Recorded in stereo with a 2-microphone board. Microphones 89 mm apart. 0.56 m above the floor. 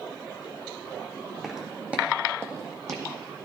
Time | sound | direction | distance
1.4 | footsteps | 5° right (ahead or behind) | 1.6 m